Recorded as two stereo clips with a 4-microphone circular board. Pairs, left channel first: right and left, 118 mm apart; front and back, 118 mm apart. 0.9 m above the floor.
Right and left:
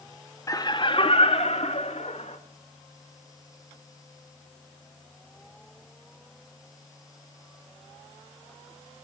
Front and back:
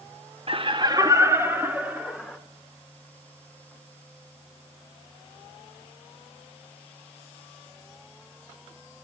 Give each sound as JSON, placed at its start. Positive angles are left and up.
{"t": 0.5, "sound": "laughter", "azimuth_deg": -150, "distance_m": 1.1}